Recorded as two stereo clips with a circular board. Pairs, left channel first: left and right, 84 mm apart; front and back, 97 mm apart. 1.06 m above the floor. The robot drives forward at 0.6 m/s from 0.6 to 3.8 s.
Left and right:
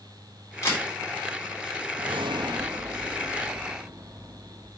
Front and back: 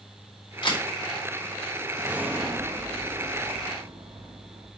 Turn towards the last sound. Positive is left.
turn(degrees=-150)